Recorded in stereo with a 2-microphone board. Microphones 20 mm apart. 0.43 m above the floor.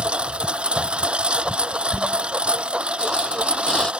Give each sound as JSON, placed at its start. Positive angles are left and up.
{"t": 0.0, "sound": "a lawn mower", "side_deg": -75}
{"t": 1.9, "sound": "a squeak", "side_deg": 40}